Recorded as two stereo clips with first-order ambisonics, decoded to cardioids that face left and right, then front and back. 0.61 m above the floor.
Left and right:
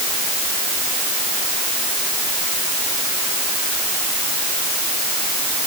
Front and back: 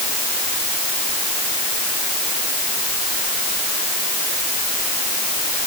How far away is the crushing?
I don't hear crushing.